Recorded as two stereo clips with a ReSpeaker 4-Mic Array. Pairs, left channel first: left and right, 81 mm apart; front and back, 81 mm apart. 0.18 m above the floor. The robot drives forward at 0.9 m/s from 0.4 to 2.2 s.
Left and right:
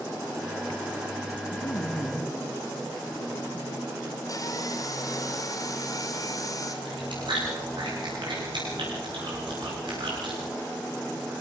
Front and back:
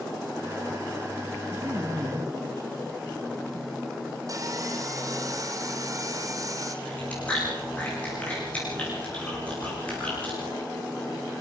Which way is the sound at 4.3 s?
135° left.